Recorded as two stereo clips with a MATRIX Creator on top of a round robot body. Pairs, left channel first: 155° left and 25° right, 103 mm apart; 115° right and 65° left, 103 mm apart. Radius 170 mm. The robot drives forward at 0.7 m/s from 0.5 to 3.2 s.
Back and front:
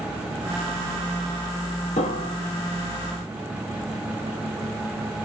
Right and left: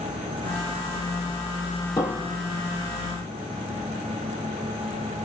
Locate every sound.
2.0 s a piano: straight behind, 0.7 m